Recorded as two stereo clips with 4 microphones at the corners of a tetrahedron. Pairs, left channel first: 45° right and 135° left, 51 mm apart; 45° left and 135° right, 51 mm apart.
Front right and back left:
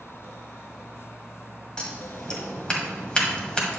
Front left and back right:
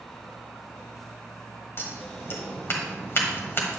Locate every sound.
1.8 s scissors: 20° left, 1.6 m